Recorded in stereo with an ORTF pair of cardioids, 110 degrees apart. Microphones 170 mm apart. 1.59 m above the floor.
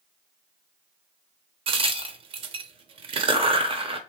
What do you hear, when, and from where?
1.7 s a crack: 35° right, 0.6 m